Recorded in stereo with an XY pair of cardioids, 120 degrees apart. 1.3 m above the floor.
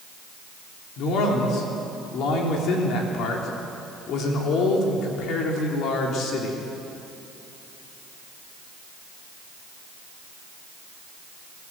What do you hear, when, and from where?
1.0 s a man speaking: 70° left, 3.5 m